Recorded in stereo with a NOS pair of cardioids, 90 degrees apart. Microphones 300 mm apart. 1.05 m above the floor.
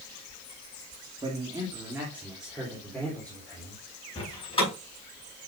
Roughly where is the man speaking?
Ahead.